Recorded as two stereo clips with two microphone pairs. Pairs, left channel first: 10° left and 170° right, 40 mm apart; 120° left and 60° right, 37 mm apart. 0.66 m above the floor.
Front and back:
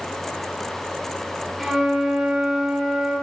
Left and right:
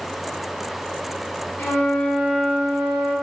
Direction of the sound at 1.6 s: 105° left.